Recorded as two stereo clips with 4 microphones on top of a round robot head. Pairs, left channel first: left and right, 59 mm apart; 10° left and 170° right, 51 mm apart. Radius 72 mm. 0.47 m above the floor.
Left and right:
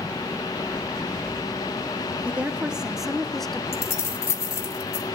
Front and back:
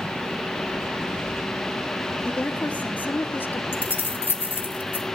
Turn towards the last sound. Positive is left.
turn(degrees=60)